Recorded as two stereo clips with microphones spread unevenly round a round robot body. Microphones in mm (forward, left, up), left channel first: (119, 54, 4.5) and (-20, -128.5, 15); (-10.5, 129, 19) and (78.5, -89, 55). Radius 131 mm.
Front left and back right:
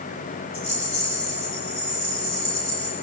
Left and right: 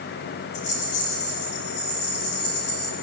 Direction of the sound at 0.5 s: 90° left.